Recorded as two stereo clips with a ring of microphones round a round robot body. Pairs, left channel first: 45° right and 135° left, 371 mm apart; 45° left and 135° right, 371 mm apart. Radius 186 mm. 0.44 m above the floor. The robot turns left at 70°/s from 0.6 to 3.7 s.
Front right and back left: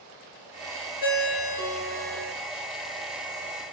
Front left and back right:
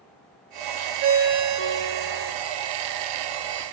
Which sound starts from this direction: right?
A ringtone, at 1.0 s.